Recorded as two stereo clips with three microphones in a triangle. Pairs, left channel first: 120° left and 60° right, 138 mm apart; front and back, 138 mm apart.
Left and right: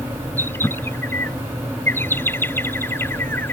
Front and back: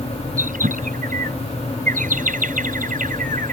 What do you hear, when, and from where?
0.4 s a bird: 165° right